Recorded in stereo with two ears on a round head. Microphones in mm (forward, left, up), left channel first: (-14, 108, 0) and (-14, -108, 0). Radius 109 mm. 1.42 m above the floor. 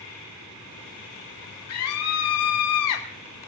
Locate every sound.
1.7 s a scream: 70° left (ahead or behind), 1.0 m